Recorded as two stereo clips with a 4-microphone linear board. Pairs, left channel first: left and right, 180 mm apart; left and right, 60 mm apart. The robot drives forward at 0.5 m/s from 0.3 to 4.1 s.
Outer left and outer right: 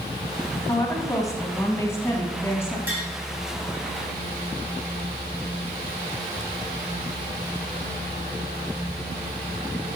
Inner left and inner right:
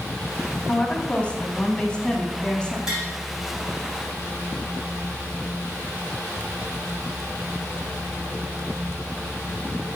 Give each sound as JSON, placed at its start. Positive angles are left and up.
{"t": 0.7, "sound": "a woman speaking", "side_deg": 20, "distance_m": 1.7}
{"t": 2.9, "sound": "tapping", "side_deg": -10, "distance_m": 6.5}